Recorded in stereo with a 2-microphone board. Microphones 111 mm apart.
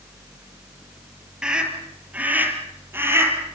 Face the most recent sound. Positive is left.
turn(degrees=-25)  # may be behind; listen again after turning